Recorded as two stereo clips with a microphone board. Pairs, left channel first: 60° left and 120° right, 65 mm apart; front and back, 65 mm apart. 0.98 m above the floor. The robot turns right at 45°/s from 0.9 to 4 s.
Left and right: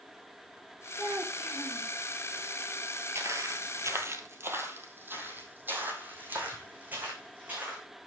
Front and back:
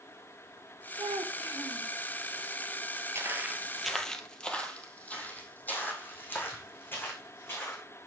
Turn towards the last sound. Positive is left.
turn(degrees=-55)